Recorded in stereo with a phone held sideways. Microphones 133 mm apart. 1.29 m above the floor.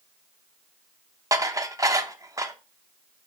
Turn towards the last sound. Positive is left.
turn(degrees=-25)  # may be behind; listen again after turning